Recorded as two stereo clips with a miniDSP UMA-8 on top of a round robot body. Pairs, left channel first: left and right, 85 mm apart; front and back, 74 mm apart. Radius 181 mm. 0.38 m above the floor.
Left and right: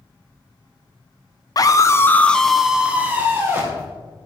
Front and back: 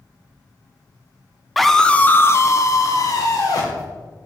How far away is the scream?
About 1.6 m.